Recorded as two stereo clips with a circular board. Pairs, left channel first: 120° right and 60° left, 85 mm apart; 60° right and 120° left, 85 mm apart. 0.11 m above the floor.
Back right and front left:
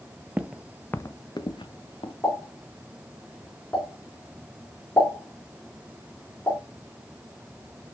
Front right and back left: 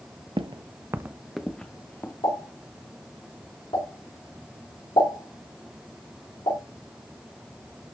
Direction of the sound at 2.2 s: 55° right.